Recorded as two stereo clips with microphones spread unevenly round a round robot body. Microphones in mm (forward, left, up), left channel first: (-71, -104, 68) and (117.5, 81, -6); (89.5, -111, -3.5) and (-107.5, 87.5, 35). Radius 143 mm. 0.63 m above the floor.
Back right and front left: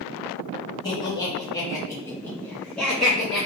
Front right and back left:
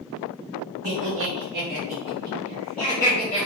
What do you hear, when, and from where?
0.8 s laughter: 140° left, 1.3 m; by 3.5 s 20° right, 1.1 m